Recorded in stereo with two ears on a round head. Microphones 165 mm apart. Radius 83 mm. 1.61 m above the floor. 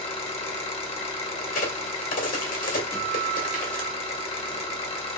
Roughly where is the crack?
Left.